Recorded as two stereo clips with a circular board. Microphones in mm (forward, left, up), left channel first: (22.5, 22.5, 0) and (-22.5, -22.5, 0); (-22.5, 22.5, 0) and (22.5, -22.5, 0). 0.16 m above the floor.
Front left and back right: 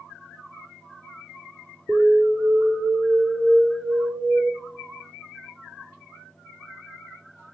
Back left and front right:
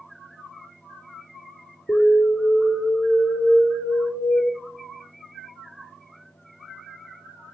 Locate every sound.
1.9 s an alarm: 170° left, 4 m